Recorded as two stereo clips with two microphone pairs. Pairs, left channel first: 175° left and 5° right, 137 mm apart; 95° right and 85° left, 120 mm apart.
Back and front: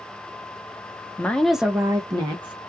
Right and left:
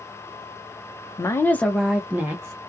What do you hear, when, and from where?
1.2 s a woman speaking: 120° right, 0.5 m; by 2.6 s 35° left, 0.7 m